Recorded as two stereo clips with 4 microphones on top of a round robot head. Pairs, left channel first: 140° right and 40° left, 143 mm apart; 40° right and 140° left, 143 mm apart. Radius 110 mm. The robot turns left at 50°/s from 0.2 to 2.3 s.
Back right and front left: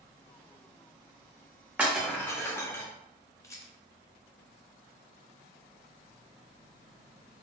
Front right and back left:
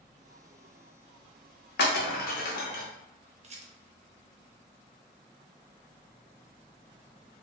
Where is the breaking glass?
40° right, 0.7 m; by 2.8 s 65° right, 0.7 m.